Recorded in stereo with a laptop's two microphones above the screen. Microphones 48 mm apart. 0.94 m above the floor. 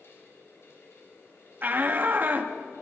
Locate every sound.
0.0 s a fan: 65° left (ahead or behind), 7 m
1.6 s a shout: 40° right (ahead or behind), 1.7 m